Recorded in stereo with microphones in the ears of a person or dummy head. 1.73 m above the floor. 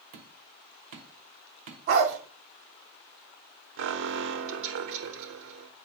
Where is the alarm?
70° right (ahead or behind), 1.2 m.